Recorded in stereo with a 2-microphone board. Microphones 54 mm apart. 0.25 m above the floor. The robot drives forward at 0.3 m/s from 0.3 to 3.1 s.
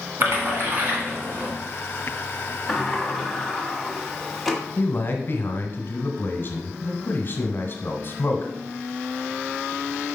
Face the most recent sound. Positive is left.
turn(degrees=45)  # may be behind; listen again after turning